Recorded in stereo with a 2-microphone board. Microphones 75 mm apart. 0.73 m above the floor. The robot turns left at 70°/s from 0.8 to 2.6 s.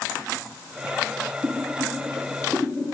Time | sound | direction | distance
1.4 | boiling | 45° right (ahead or behind) | 8.5 m